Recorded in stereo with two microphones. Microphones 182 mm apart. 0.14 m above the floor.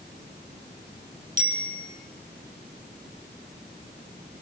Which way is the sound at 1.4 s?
45° right (ahead or behind).